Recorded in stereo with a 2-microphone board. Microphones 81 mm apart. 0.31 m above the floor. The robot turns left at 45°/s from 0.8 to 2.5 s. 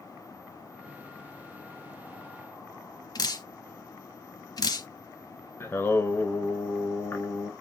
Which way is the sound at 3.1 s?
55° left (ahead or behind).